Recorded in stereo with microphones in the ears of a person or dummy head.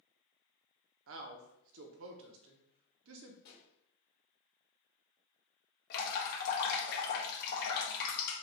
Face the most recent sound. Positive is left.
turn(degrees=55)  # may be behind; listen again after turning